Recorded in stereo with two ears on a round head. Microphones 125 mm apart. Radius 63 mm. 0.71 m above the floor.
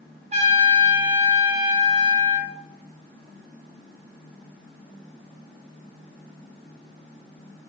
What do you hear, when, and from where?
0.3 s a trumpet: 45° right (ahead or behind), 1.1 m